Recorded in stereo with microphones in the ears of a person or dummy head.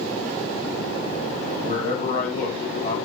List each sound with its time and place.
1.6 s a man speaking: 65° left (ahead or behind), 2.5 m